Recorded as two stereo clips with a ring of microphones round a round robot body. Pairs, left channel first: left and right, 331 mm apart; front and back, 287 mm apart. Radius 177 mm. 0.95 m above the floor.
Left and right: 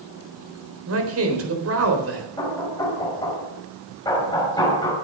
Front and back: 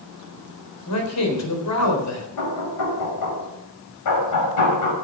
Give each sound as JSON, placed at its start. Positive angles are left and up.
{"t": 0.9, "sound": "a man speaking", "azimuth_deg": -40, "distance_m": 4.0}
{"t": 2.4, "sound": "knocking", "azimuth_deg": 10, "distance_m": 5.5}